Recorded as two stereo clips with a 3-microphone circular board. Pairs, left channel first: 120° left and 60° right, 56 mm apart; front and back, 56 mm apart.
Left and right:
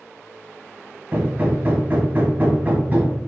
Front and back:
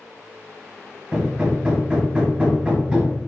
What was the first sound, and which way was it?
Hammering, 115° right.